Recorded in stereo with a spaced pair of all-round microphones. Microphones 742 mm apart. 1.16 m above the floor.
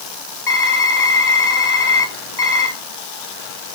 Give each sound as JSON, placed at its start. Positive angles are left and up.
{"t": 0.5, "sound": "typing on a keyboard", "side_deg": 70, "distance_m": 1.6}